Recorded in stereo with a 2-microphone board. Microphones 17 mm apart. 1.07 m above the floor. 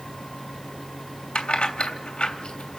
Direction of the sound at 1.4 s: 80° left.